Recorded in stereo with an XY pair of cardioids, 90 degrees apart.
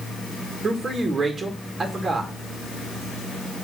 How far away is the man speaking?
About 2 m.